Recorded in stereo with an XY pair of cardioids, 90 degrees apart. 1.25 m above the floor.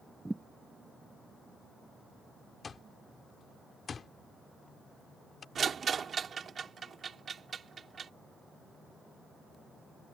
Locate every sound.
0.2 s a thud: 15° right
2.6 s an alarm clock: 45° left
5.5 s a rattle: 55° right